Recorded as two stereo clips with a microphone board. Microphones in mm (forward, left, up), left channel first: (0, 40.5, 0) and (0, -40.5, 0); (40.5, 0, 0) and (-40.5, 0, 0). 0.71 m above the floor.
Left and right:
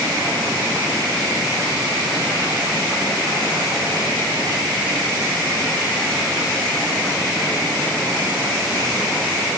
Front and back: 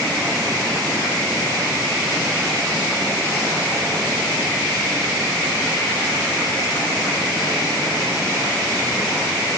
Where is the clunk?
No clunk in this recording.